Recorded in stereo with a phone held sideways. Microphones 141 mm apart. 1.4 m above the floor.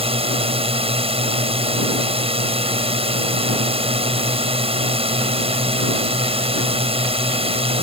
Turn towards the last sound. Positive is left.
turn(degrees=-45)  # may be behind; listen again after turning